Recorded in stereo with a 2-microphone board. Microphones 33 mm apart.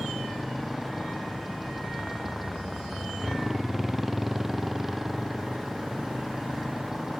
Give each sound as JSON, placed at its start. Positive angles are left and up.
{"t": 0.0, "sound": "a motorcycle", "side_deg": -5}